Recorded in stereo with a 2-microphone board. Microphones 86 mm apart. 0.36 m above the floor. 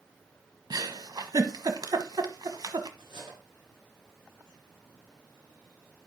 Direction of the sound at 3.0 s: 75° right (ahead or behind).